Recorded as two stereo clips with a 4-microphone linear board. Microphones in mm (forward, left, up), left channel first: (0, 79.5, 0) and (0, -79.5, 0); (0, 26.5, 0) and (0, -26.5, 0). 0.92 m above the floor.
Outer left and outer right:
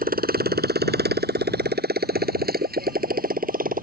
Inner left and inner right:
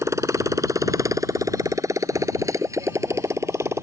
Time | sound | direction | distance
0.0 | a motorcycle | 65° right (ahead or behind) | ?